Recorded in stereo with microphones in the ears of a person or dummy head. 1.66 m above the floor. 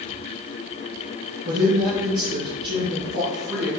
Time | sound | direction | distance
1.4 | a woman speaking | 50° right (ahead or behind) | 0.9 m